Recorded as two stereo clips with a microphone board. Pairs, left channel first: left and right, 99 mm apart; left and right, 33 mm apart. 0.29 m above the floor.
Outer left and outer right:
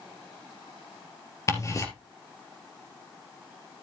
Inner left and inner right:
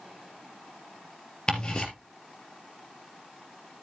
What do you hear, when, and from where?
1.5 s ticking: 30° left (ahead or behind), 3 m